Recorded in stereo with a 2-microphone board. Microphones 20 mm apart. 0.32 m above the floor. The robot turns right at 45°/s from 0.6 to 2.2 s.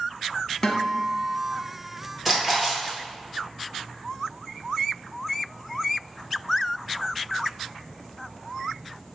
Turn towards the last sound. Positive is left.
turn(degrees=-10)  # may be behind; listen again after turning